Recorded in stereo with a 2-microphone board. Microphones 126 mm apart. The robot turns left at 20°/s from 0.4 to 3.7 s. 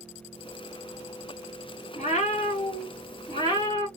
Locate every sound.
1.9 s a cat meowing: 70° left, 2 m; by 3.9 s 35° left, 2 m